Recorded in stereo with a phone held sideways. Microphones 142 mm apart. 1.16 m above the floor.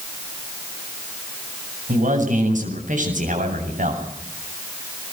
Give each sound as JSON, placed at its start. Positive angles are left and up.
{"t": 1.9, "sound": "a man speaking", "side_deg": -65, "distance_m": 7.5}